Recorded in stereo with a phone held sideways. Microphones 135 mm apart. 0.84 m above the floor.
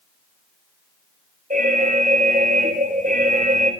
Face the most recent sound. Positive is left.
turn(degrees=-75)  # may be behind; listen again after turning